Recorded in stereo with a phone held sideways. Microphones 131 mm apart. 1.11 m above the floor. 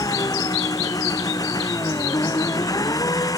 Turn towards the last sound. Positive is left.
turn(degrees=25)  # may be behind; listen again after turning